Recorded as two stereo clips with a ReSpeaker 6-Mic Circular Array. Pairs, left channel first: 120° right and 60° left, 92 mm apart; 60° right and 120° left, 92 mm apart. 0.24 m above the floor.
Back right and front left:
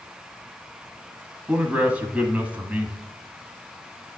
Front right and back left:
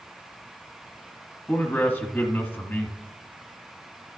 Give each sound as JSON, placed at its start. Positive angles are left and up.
{"t": 1.5, "sound": "a man speaking", "azimuth_deg": -5, "distance_m": 1.2}